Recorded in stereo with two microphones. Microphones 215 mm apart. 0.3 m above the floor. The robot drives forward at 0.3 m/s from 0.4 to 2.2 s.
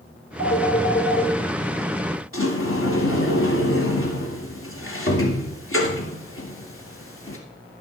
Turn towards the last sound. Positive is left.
turn(degrees=70)  # may be behind; listen again after turning